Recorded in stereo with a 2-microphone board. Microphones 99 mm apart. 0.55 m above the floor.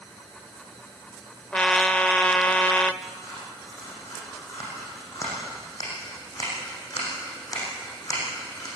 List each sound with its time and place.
1.5 s a trumpet: 10° left (ahead or behind), 0.8 m
3.0 s scissors: 35° left (ahead or behind), 9 m